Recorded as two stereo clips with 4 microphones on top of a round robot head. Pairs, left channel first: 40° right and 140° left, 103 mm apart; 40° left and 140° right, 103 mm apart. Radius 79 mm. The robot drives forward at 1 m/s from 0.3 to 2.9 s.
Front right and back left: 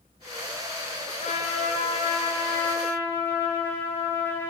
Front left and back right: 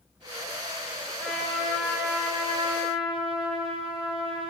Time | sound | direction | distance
1.2 | a trumpet | 45° right | 1.9 m